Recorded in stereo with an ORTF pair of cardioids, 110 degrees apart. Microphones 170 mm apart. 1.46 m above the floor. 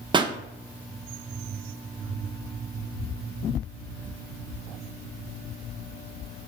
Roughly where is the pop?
Ahead right.